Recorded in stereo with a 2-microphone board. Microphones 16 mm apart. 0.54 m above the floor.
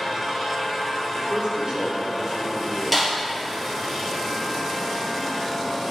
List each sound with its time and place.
1.1 s a man speaking: 60° right (ahead or behind), 2.5 m; by 2.8 s 40° right (ahead or behind), 2.5 m
2.9 s a snare drum: 5° left (ahead or behind), 2 m